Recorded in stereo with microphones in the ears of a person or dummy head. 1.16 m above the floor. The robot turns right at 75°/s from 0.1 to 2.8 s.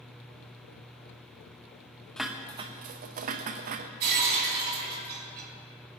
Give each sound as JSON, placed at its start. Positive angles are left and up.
{"t": 2.2, "sound": "dishes clattering", "azimuth_deg": 180, "distance_m": 0.6}
{"t": 4.0, "sound": "breaking glass", "side_deg": -55, "distance_m": 4.5}